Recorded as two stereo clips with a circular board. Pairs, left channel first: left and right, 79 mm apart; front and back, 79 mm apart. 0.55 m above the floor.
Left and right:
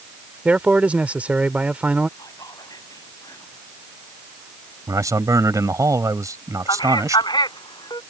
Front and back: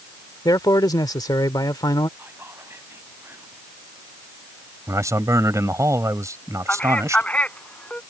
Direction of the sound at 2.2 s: 120° left.